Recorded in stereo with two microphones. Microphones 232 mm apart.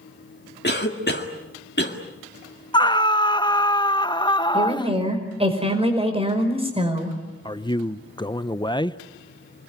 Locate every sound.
0.6 s a cough: 45° left (ahead or behind), 1.9 m
2.7 s a scream: 20° left (ahead or behind), 0.7 m
4.5 s a woman speaking: 25° right (ahead or behind), 5 m
7.5 s a man speaking: 20° left (ahead or behind), 0.7 m